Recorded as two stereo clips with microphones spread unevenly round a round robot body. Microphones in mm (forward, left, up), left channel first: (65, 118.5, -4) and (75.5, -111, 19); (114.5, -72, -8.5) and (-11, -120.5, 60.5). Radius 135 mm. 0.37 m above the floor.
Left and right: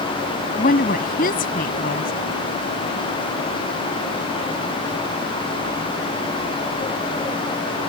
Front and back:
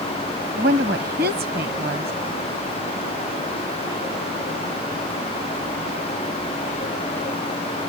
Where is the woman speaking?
150° left.